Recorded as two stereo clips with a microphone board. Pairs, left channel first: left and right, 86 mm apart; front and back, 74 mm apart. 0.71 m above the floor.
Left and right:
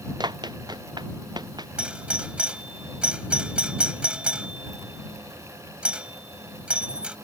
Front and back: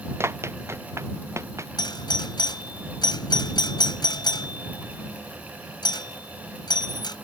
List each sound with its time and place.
0.2 s running footsteps: 125° right; by 1.7 s 130° right
1.8 s a doorbell: 15° right